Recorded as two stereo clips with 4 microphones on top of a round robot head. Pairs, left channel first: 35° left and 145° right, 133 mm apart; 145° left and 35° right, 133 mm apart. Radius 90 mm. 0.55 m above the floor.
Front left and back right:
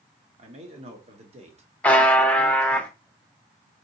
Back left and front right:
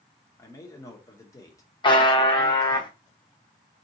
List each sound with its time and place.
0.4 s a man speaking: 155° right, 1.4 m
1.8 s a buzzer: 110° left, 1.0 m